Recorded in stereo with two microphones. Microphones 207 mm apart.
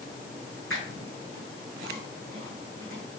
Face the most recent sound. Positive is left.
turn(degrees=-80)